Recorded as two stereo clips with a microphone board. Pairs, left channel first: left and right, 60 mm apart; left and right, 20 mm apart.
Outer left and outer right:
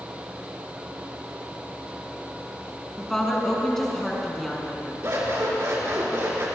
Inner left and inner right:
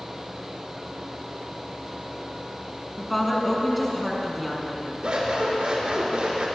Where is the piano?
No piano in this recording.